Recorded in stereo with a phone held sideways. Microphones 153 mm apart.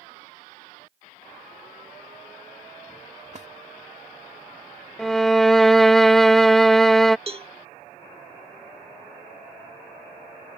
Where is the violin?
Centre (ahead or behind).